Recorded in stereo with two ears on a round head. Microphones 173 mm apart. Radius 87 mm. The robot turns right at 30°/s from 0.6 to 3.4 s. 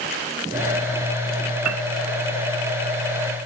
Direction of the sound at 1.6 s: 85° right.